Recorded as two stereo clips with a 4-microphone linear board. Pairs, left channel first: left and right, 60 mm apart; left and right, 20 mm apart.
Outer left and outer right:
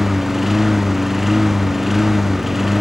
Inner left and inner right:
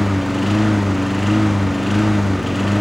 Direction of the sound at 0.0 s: 5° right (ahead or behind).